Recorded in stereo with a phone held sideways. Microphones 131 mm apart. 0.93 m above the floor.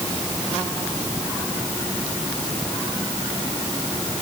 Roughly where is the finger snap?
No finger snap in this recording.